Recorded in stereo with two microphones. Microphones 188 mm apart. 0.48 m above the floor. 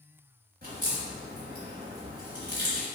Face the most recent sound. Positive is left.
turn(degrees=-60)  # may be behind; listen again after turning